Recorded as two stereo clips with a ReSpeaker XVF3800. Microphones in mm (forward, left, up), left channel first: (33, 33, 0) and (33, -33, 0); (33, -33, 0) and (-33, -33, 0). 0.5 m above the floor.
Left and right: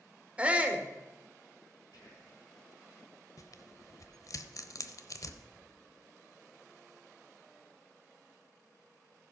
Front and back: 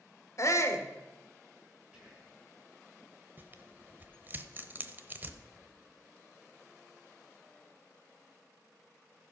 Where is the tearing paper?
120° left, 0.7 m.